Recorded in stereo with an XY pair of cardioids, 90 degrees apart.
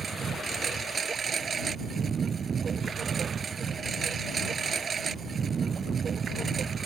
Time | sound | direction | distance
0.0 | a lawn mower | 50° right | ?